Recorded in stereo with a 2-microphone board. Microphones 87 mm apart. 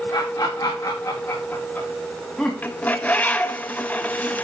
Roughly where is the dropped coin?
No dropped coin in this recording.